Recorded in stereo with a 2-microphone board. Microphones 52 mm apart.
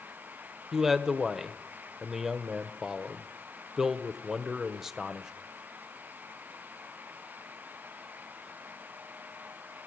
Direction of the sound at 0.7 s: 10° right (ahead or behind).